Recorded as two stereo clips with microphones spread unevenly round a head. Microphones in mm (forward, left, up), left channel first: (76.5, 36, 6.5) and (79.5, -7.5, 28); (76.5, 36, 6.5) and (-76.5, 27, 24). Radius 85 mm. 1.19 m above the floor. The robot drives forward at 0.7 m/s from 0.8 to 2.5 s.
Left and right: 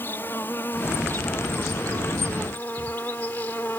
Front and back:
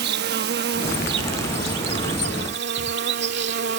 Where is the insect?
170° left; by 3.8 s 175° left.